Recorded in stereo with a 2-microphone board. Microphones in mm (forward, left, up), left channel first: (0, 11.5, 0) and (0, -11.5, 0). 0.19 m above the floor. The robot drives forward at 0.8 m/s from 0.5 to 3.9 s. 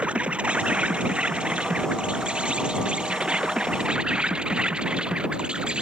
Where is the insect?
70° right (ahead or behind); by 5.8 s 55° right (ahead or behind).